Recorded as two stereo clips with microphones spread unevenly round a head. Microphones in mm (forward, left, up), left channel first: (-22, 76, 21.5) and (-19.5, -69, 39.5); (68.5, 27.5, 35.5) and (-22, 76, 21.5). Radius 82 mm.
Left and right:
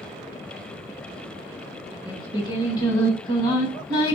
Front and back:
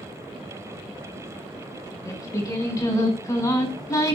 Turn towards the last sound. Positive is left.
turn(degrees=30)